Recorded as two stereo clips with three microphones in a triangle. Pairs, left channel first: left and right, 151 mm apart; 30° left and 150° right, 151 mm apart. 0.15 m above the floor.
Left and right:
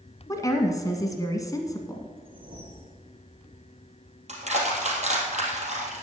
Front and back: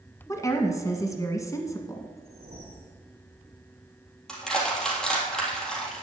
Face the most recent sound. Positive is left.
turn(degrees=-55)